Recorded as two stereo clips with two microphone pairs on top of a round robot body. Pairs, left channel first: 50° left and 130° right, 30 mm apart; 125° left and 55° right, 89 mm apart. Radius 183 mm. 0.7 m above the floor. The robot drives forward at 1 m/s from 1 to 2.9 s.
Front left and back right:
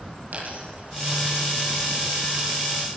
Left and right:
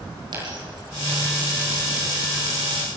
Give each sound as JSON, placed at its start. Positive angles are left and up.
{"t": 0.3, "sound": "a dropped coin", "azimuth_deg": -95, "distance_m": 7.0}